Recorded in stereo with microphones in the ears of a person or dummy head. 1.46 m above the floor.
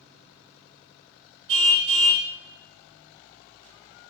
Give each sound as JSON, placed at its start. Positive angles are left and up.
{"t": 1.5, "sound": "a car horn", "side_deg": -70, "distance_m": 3.0}